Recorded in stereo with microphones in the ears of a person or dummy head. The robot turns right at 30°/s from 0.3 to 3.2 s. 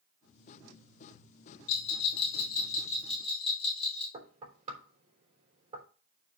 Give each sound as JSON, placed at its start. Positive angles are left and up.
{"t": 1.7, "sound": "a bell", "side_deg": 65, "distance_m": 2.5}
{"t": 4.1, "sound": "knocking", "side_deg": -30, "distance_m": 3.5}